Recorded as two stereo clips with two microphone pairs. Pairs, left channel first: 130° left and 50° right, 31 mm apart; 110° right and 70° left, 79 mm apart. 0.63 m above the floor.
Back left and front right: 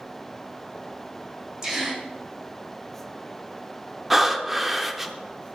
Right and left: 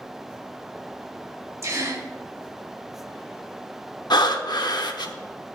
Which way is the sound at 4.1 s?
125° right.